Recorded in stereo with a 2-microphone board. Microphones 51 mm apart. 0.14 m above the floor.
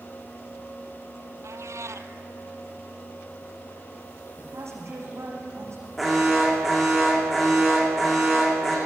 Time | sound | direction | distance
1.4 | a cat meowing | 80° right | 0.9 m
4.4 | a woman speaking | 65° right (ahead or behind) | 6.5 m
6.0 | an alarm | centre (ahead or behind) | 6 m